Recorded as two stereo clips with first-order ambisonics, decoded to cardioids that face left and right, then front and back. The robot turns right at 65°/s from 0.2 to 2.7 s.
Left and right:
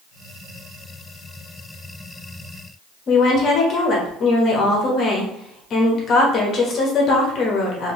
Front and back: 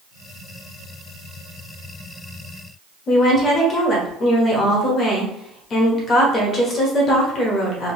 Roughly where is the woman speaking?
Ahead left.